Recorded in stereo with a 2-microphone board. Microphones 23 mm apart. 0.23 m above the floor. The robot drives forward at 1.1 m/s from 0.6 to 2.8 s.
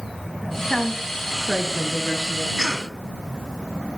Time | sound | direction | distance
0.7 | a woman speaking | 10° left (ahead or behind) | 1.5 m
2.6 | a cough | 10° right (ahead or behind) | 1.8 m